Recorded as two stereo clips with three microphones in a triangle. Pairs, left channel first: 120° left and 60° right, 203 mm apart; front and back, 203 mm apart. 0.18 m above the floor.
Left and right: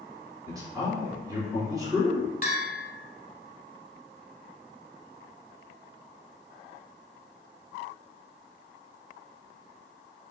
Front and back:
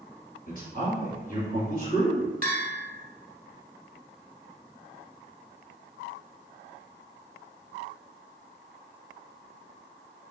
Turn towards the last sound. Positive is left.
turn(degrees=155)